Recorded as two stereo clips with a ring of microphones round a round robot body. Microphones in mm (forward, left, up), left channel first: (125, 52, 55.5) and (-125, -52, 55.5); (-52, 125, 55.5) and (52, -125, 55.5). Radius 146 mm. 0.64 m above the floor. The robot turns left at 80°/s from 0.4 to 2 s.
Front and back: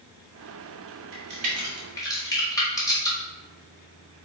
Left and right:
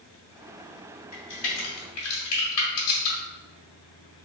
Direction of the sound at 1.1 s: 170° left.